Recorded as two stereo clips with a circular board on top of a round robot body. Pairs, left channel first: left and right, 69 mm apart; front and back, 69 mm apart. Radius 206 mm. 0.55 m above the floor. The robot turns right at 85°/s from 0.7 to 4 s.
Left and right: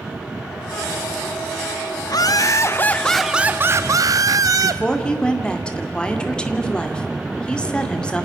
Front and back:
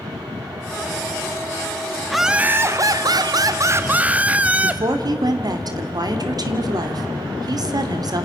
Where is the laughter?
85° left, 1.1 m; by 4.8 s 110° right, 1.1 m.